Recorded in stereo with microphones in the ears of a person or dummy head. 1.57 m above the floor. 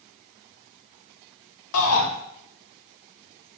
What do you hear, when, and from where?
1.7 s a shout: 80° left, 1.6 m